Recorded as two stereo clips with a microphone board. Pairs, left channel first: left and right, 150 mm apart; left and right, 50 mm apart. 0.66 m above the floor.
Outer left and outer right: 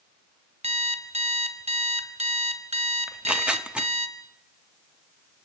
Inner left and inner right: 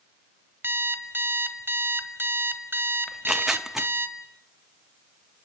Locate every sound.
0.6 s an alarm clock: 45° right (ahead or behind), 1.7 m
3.1 s tearing paper: 5° right (ahead or behind), 1.0 m